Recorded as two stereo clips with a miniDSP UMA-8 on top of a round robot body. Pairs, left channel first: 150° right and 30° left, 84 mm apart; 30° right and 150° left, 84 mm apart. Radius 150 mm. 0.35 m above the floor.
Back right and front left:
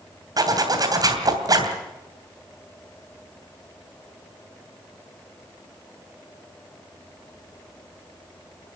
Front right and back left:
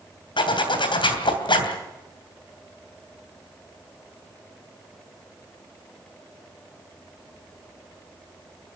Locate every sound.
0.4 s a zipper: 15° right, 3 m